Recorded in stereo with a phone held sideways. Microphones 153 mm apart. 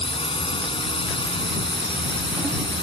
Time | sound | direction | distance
0.0 | a drone | 35° left (ahead or behind) | ?